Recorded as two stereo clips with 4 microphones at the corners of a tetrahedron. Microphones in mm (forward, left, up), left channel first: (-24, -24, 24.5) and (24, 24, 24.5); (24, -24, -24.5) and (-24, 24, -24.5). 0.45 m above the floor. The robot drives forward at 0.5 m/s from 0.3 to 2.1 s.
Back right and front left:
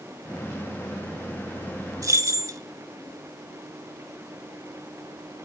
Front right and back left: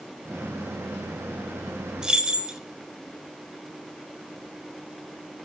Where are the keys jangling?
55° left, 0.6 m; by 2.6 s 60° left, 0.6 m.